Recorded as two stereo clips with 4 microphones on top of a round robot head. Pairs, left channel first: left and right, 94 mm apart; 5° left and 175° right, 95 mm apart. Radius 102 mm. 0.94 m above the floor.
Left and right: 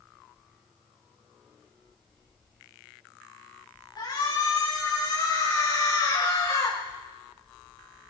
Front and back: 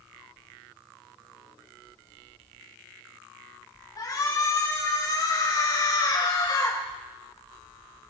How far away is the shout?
About 7 m.